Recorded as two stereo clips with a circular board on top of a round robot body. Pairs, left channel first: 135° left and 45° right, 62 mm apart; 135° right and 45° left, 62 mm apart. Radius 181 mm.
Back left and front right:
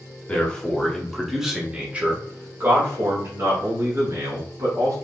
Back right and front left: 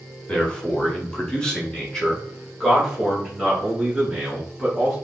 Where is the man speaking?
170° left, 1.4 m; by 5.0 s 45° right, 2.5 m.